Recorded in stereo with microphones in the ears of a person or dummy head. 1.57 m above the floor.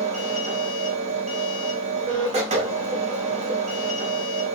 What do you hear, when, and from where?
0.0 s a machine running: 30° right (ahead or behind), 0.8 m